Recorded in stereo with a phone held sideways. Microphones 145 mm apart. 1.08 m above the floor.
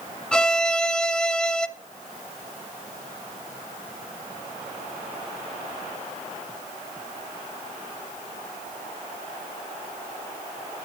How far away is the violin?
About 0.6 m.